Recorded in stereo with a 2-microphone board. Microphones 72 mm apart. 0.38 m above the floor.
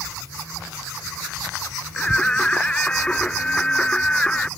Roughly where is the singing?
Centre.